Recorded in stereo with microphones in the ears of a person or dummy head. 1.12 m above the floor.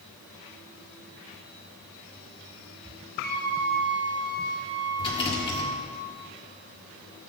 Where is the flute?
40° right (ahead or behind), 3 m.